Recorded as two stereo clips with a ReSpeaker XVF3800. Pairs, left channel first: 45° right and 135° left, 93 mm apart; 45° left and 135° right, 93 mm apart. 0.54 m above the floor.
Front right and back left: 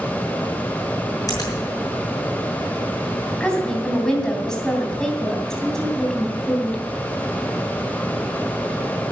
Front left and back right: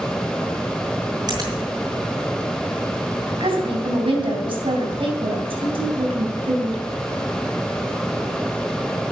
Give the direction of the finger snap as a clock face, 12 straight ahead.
3 o'clock.